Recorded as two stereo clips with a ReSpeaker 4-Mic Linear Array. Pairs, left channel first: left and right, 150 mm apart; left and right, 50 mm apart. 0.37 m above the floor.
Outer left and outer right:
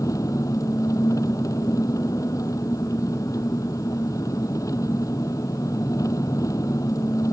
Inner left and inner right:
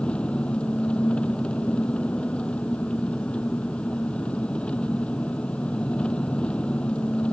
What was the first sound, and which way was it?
An engine running, 20° left (ahead or behind).